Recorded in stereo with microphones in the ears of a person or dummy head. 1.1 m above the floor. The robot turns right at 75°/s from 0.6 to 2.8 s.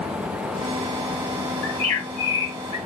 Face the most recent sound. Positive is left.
turn(degrees=160)